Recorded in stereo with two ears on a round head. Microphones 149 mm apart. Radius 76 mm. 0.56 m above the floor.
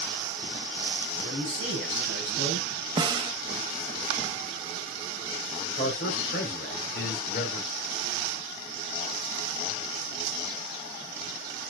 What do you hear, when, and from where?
1.2 s a man speaking: 70° left (ahead or behind), 4 m
3.0 s a snare drum: 25° right (ahead or behind), 0.6 m
5.8 s a man speaking: 60° left (ahead or behind), 2 m